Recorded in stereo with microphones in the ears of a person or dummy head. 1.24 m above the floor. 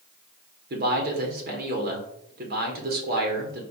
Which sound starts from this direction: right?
A man speaking, at 0.7 s.